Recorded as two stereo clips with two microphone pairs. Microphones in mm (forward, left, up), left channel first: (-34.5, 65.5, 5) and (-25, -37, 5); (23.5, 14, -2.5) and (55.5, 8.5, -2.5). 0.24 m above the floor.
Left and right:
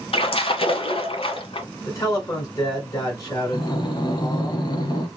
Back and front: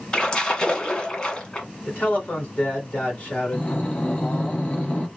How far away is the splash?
About 0.9 m.